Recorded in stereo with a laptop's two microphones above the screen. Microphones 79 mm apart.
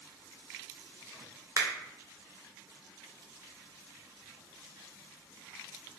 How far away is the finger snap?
About 0.7 m.